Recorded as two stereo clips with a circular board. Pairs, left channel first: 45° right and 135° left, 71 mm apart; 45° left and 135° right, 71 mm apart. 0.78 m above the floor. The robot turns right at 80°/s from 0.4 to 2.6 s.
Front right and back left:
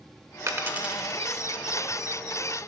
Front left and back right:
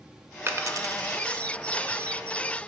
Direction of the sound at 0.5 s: 175° left.